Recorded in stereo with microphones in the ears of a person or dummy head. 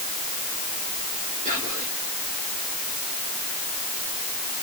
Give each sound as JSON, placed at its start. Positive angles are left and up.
{"t": 1.4, "sound": "whispering", "side_deg": -40, "distance_m": 5.0}